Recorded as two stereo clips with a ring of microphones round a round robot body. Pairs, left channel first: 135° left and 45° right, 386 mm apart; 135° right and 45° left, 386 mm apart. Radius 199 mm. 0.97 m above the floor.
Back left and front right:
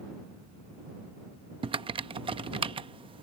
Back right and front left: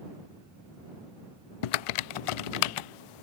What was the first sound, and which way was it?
Typing on a keyboard, 120° right.